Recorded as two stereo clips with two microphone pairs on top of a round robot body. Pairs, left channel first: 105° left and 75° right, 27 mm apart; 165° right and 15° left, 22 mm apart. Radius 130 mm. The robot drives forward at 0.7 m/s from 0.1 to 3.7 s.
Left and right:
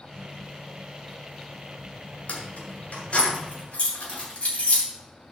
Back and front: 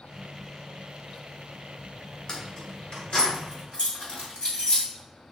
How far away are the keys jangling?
About 2 m.